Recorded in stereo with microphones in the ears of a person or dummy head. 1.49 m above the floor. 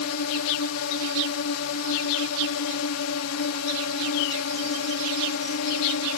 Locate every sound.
0.0 s a drone: 75° left (ahead or behind)